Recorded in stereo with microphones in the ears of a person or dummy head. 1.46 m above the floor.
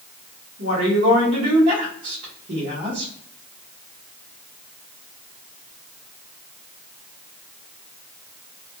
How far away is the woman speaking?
About 1.3 m.